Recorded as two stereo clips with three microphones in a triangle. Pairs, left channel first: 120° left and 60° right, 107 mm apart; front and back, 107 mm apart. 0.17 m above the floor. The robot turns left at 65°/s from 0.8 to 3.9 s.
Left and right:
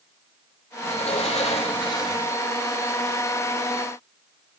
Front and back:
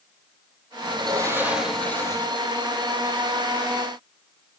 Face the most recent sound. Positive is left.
turn(degrees=-50)